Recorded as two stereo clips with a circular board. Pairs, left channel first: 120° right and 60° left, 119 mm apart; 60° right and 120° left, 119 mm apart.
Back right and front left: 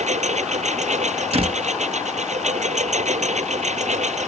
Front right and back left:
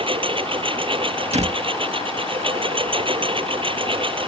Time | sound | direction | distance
0.0 | a lawn mower | 75° left | ?
1.3 | a door slam | 95° left | ?